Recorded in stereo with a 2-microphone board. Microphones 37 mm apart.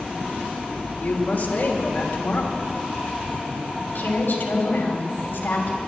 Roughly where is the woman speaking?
Left.